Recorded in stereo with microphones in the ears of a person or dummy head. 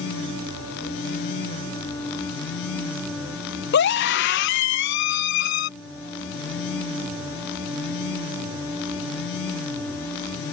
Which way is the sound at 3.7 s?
60° left (ahead or behind).